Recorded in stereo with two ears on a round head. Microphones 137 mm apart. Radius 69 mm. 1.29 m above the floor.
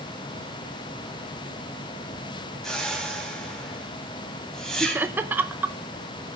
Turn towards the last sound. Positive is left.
turn(degrees=-15)  # may be behind; listen again after turning